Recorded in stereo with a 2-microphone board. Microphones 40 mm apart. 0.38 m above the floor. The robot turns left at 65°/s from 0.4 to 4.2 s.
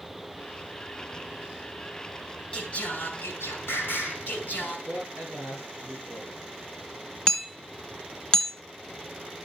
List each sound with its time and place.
2.5 s singing: 150° left, 4.5 m; by 4.8 s 45° left, 4.5 m
4.9 s a man speaking: 55° right (ahead or behind), 6 m
7.3 s hammering: 20° left (ahead or behind), 1.8 m